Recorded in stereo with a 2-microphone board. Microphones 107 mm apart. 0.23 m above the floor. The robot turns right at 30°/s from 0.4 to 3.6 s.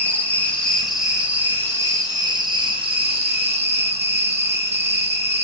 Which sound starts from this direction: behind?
An insect, at 0.0 s.